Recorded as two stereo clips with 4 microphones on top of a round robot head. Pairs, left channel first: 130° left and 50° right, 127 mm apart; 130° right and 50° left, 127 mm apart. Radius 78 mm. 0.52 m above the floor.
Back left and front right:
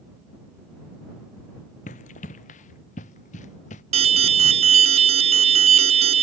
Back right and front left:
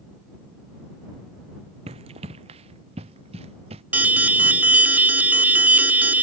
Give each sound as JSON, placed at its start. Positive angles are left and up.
{"t": 1.9, "sound": "running footsteps", "azimuth_deg": 95}
{"t": 3.9, "sound": "an alarm", "azimuth_deg": -25}